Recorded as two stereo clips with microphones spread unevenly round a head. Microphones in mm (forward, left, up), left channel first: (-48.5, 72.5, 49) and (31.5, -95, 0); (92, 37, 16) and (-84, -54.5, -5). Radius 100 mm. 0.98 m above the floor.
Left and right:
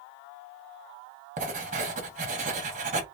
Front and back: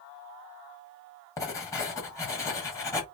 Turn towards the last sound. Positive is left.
turn(degrees=-50)